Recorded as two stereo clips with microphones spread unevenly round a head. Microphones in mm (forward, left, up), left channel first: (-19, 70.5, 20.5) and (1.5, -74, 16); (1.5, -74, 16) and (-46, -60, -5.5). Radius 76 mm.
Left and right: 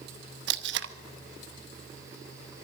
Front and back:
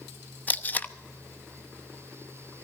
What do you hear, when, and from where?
0.5 s tape being pulled: 70° right, 0.8 m